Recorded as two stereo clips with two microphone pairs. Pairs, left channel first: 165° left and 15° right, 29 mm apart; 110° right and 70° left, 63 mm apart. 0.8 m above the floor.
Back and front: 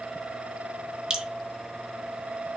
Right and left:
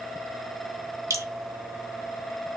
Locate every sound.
1.1 s dripping: 50° left, 1.5 m